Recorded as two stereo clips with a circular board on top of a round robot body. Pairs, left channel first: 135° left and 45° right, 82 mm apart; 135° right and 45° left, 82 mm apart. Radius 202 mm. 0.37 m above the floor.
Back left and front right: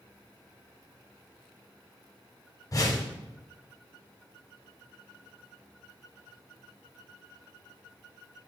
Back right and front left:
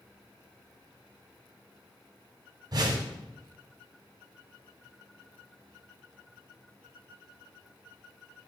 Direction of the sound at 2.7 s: 80° left.